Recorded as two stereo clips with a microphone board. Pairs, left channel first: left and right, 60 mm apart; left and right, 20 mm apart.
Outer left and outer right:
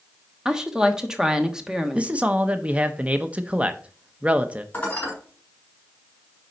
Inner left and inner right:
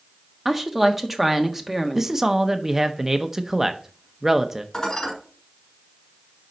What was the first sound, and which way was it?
A woman speaking, 10° right (ahead or behind).